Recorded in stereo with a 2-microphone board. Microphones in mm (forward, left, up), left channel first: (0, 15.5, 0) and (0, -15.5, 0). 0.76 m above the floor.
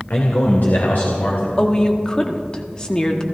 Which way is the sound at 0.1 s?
70° left (ahead or behind).